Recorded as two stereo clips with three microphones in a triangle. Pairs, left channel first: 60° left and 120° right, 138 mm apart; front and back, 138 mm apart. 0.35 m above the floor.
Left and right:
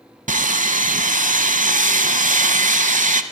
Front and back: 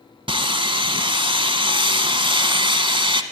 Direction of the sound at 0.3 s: 130° right.